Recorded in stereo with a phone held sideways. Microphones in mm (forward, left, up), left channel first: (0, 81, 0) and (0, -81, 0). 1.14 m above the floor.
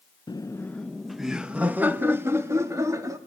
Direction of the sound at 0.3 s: 25° left (ahead or behind).